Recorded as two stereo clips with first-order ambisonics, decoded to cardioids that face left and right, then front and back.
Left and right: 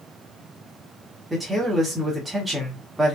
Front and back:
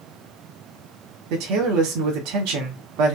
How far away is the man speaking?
About 2 m.